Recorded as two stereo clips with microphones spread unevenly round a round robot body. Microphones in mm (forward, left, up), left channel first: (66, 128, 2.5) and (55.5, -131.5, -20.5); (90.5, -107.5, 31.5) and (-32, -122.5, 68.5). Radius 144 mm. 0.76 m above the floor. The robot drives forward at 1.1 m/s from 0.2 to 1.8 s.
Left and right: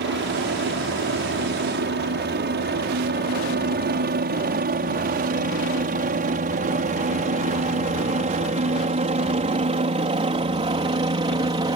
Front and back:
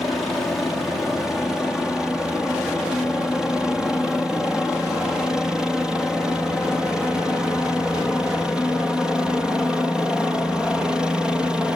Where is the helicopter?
65° right; by 11.8 s 55° right.